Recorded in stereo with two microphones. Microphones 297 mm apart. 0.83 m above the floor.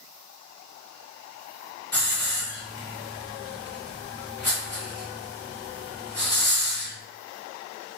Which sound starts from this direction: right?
A hiss, at 1.9 s.